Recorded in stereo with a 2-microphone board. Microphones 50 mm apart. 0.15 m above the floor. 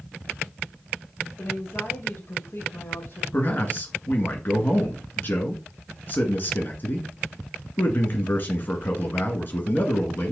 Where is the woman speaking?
55° left (ahead or behind), 3.5 m.